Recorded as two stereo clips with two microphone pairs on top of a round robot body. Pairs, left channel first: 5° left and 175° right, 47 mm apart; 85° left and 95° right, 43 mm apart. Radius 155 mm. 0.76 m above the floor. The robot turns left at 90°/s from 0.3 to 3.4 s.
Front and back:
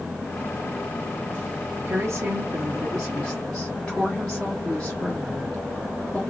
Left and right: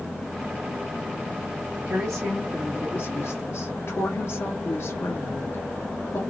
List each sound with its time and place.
1.9 s a woman speaking: 135° right, 1.7 m; by 6.2 s 85° left, 1.7 m